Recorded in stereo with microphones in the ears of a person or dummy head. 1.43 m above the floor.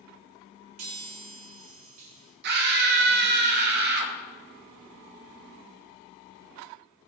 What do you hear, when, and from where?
0.8 s a chime: 45° right (ahead or behind), 6 m
2.4 s a scream: 60° right (ahead or behind), 2.5 m